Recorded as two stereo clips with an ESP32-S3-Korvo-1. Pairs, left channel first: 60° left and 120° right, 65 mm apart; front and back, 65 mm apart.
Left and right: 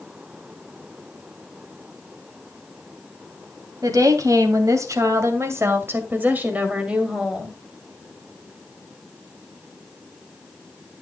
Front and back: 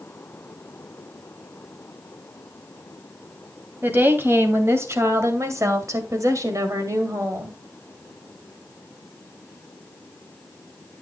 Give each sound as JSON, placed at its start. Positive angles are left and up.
{"t": 3.8, "sound": "a woman speaking", "azimuth_deg": -125, "distance_m": 2.5}